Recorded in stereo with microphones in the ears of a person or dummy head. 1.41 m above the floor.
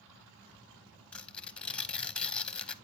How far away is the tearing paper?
About 0.8 m.